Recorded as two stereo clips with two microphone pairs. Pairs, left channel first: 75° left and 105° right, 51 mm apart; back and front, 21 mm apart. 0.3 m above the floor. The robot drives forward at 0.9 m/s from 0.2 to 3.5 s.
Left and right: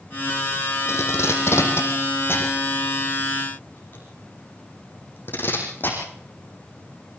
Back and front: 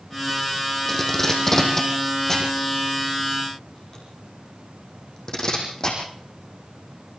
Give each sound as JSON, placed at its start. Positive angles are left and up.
{"t": 0.9, "sound": "tape being pulled", "azimuth_deg": 105, "distance_m": 5.5}